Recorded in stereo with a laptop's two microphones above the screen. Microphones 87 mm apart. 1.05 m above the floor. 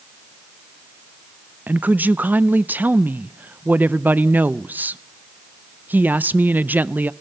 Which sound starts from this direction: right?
A woman speaking, at 1.7 s.